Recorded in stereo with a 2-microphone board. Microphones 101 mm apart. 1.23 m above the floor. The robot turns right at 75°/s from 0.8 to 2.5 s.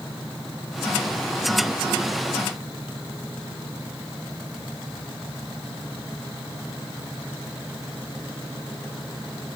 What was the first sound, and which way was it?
Only background noise.